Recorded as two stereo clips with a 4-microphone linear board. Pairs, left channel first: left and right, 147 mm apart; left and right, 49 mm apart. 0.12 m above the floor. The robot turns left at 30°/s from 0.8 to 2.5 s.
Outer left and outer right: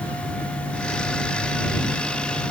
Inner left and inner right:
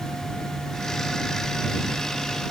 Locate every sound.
Only background noise.